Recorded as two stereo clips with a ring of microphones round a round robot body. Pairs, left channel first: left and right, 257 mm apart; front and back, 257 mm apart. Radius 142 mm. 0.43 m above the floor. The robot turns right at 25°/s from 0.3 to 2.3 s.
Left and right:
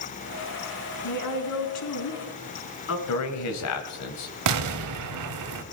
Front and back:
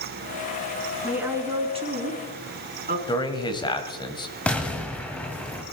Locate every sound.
1.0 s a woman speaking: 95° left, 4.5 m; by 3.0 s 125° left, 4.5 m
3.1 s a man speaking: 70° left, 2 m
4.5 s an explosion: 85° right, 1.4 m